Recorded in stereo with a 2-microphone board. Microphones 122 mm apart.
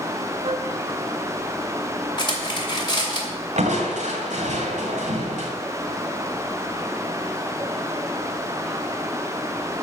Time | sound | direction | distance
0.4 | a flute | 60° right (ahead or behind) | 1.3 m
2.2 | cutlery clinking | 40° left (ahead or behind) | 2.5 m
3.6 | crushing | 80° right | 2 m